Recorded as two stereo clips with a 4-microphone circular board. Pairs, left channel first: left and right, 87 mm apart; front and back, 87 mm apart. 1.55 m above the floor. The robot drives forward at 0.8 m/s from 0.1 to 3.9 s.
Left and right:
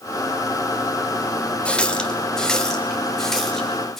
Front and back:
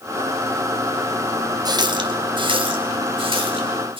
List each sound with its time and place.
1.6 s a running tap: 165° left, 0.8 m; by 4.0 s 175° left, 2.5 m